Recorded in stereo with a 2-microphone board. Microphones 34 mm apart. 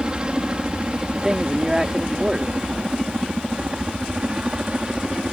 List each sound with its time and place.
0.0 s a helicopter: 25° right (ahead or behind)
1.1 s a man speaking: 20° right (ahead or behind)